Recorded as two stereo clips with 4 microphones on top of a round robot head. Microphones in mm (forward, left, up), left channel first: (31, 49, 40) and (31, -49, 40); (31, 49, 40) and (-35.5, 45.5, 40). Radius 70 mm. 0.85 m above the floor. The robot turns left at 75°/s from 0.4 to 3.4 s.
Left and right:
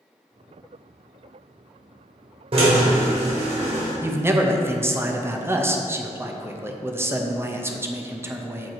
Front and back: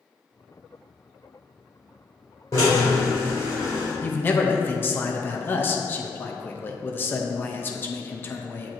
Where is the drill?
55° right, 1.9 m; by 3.9 s 120° right, 1.9 m.